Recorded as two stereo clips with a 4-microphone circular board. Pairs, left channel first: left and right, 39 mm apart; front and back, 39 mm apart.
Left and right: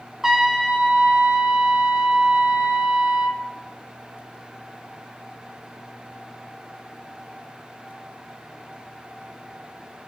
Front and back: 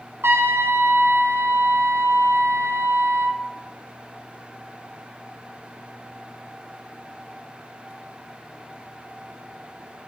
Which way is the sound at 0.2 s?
170° right.